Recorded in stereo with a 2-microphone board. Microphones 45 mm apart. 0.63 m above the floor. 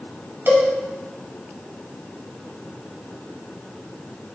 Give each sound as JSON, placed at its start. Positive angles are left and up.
{"t": 0.5, "sound": "a cowbell", "side_deg": -60, "distance_m": 0.9}